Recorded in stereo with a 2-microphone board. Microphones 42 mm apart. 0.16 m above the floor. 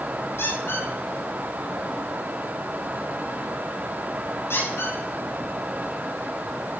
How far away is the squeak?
About 8 m.